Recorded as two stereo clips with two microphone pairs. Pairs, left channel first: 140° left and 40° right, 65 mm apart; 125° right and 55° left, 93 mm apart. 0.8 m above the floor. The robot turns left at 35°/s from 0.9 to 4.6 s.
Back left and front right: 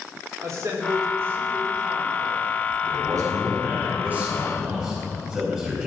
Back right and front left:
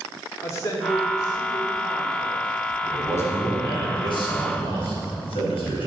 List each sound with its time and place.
0.4 s a man speaking: 75° right, 2 m; by 2.5 s 130° right, 2 m
2.8 s a man speaking: 55° right, 4.5 m; by 5.9 s 120° right, 4.5 m